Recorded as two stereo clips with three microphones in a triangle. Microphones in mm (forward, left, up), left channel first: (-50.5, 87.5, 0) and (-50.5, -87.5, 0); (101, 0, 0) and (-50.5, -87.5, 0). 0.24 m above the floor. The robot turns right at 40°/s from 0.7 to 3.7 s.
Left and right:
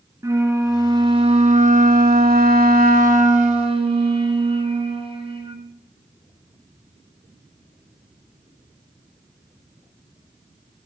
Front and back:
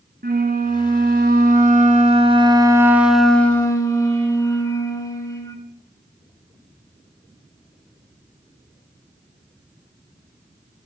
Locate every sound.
0.2 s a flute: 160° right, 1.6 m; by 5.6 s 40° right, 1.6 m